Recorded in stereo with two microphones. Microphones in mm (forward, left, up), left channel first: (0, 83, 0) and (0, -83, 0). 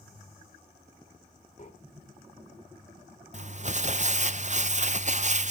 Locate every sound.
1.6 s breathing: 45° left (ahead or behind), 2 m
3.3 s crumpling: 45° right (ahead or behind), 0.5 m